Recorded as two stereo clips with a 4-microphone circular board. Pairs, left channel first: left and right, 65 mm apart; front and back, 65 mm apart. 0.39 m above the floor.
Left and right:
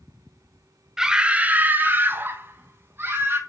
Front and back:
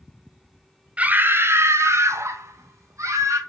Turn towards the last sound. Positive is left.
turn(degrees=-145)